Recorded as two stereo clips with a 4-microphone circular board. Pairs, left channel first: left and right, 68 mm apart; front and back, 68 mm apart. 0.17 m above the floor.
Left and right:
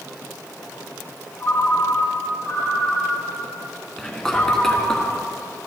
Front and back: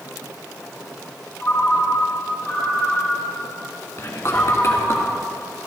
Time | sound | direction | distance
1.4 | a ringtone | 50° left | 3 m
4.0 | whispering | 15° left | 1.8 m